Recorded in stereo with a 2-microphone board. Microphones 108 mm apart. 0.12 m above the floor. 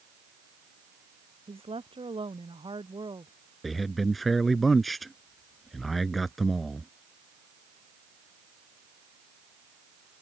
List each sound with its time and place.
1.5 s a woman speaking: 55° right (ahead or behind); by 3.3 s 40° right (ahead or behind)
3.6 s a man speaking: centre (ahead or behind)